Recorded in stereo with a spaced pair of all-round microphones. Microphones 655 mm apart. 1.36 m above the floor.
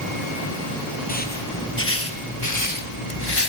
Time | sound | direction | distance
1.1 | footsteps | 15° left (ahead or behind) | 2.5 m